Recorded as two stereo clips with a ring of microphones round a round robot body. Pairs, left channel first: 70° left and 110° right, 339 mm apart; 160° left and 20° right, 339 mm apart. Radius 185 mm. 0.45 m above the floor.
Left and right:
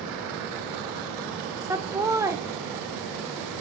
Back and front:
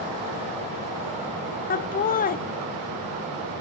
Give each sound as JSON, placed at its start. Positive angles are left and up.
{"t": 1.7, "sound": "laughter", "azimuth_deg": 175, "distance_m": 0.8}